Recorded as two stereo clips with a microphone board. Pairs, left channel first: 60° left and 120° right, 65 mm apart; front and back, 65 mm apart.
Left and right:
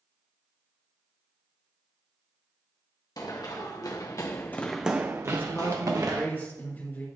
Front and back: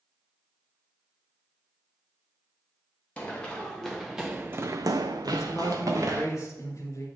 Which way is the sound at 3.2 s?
75° left.